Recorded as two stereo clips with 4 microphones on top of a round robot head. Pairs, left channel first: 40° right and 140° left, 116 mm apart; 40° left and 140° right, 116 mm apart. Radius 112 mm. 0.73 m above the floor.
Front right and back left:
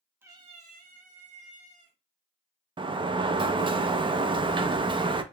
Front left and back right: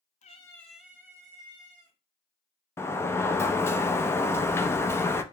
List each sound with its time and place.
0.2 s a cat meowing: 70° left, 0.6 m; by 2.0 s 165° left, 1.8 m
2.8 s a sliding door: 105° left, 0.5 m